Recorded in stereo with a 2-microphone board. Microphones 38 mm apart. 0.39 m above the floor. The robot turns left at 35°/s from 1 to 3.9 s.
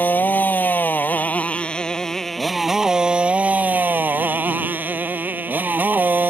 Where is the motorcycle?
50° left; by 6.3 s 50° right.